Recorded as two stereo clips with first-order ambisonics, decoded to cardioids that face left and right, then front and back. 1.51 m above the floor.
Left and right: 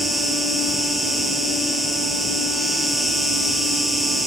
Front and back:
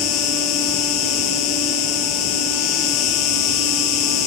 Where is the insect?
Straight ahead, 1.3 m.